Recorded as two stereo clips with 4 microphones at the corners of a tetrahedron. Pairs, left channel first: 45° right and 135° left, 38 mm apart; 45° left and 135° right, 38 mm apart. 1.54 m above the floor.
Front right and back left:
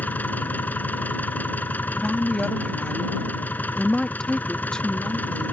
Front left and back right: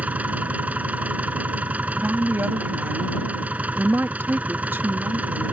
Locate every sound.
0.0 s an engine running: 85° right
2.0 s a woman speaking: 115° right